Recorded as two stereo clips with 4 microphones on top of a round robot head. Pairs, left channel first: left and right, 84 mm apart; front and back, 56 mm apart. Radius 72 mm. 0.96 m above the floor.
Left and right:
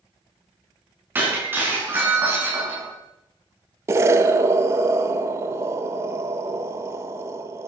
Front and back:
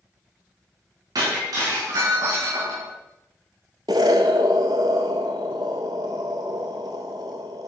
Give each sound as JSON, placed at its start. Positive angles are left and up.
{"t": 1.1, "sound": "breaking glass", "azimuth_deg": -155, "distance_m": 6.5}
{"t": 3.9, "sound": "an explosion", "azimuth_deg": -140, "distance_m": 0.9}